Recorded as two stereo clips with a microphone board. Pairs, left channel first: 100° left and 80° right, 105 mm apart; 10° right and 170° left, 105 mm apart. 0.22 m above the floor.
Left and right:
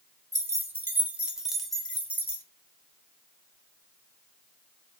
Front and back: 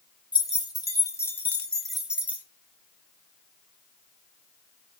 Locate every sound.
0.3 s keys jangling: 35° right, 1.2 m; by 2.4 s 115° left, 1.0 m